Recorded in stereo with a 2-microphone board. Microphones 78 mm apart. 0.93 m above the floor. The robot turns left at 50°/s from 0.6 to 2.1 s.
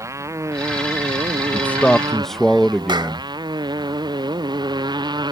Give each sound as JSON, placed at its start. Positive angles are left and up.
{"t": 0.0, "sound": "a motorcycle", "azimuth_deg": -40}
{"t": 1.5, "sound": "a man speaking", "side_deg": 25}
{"t": 2.9, "sound": "a clap", "side_deg": -75}